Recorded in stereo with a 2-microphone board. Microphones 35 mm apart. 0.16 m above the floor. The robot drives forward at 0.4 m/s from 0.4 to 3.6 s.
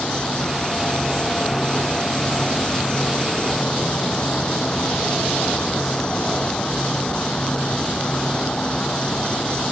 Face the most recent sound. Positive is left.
turn(degrees=25)  # may be behind; listen again after turning